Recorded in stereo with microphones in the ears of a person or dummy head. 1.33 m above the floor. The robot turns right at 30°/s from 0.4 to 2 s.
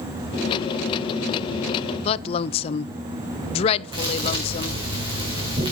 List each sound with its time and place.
2.0 s a woman speaking: 30° left (ahead or behind), 0.5 m
3.9 s a thud: 20° right (ahead or behind), 5.5 m